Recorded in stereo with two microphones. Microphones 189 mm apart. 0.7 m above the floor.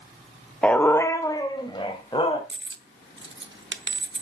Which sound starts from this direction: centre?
A dog barking, at 0.6 s.